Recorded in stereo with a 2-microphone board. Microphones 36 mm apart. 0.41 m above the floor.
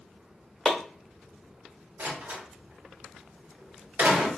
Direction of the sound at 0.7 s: 10° left (ahead or behind).